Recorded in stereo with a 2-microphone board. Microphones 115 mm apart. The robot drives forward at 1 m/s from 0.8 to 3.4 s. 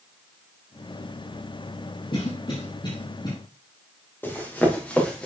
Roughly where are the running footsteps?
Centre.